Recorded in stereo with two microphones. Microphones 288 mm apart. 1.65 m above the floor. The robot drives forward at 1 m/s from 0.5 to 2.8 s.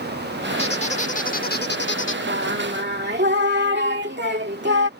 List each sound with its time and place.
0.6 s a squeak: 20° left (ahead or behind); by 2.2 s 40° left (ahead or behind)
2.3 s singing: 45° right (ahead or behind); by 4.9 s 35° right (ahead or behind)